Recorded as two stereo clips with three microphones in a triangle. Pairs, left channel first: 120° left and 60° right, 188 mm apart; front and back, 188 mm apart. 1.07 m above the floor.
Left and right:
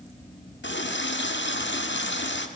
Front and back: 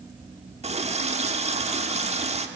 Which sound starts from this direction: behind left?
A running tap, at 0.6 s.